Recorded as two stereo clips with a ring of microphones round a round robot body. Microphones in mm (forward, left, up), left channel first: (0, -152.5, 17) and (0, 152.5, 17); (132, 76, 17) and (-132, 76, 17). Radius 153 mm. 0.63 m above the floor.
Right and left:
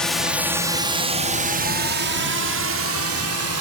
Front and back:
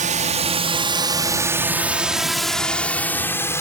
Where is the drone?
175° right; by 3.6 s 75° left.